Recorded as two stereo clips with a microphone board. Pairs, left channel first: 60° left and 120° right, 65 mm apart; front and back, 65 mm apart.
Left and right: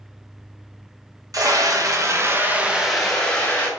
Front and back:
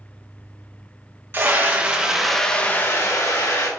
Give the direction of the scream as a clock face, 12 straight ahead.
4 o'clock.